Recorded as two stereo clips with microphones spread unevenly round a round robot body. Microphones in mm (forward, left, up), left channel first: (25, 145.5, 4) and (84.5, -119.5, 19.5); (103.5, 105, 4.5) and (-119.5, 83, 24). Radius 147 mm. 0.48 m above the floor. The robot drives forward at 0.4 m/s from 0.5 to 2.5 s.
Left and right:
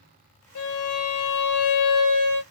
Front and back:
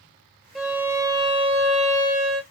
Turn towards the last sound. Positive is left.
turn(degrees=135)